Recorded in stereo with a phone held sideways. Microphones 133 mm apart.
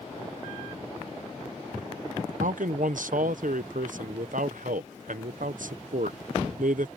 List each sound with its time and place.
2.4 s a man speaking: 80° right